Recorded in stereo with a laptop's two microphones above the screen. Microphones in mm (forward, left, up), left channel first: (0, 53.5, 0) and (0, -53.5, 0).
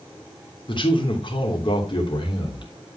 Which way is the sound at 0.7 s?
50° left (ahead or behind).